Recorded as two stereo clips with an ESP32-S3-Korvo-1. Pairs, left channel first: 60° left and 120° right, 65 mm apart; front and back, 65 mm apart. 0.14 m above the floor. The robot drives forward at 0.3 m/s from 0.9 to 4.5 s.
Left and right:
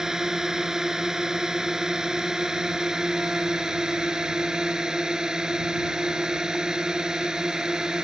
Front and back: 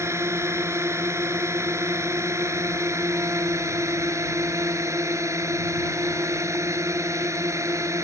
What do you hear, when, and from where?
0.0 s a drone: 160° left; by 8.0 s 165° left